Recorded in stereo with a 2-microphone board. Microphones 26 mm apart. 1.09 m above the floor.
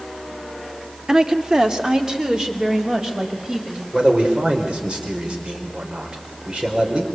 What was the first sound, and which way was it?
A woman speaking, 25° right (ahead or behind).